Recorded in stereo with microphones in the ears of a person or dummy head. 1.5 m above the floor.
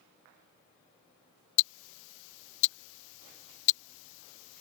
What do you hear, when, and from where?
1.6 s ticking: 70° left (ahead or behind)